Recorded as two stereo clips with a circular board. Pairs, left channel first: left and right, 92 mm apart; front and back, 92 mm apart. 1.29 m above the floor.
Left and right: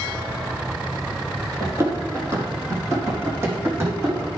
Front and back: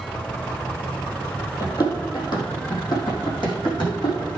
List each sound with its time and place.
1.6 s running footsteps: 40° right, 2.5 m; by 4.3 s 30° right, 5 m